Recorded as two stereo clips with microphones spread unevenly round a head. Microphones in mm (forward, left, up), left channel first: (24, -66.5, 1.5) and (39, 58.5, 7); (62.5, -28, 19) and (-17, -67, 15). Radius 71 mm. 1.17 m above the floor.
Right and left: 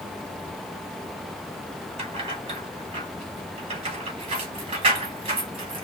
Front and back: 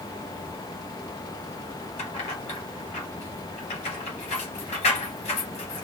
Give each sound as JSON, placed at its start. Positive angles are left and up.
{"t": 2.0, "sound": "keys jangling", "azimuth_deg": 40, "distance_m": 1.7}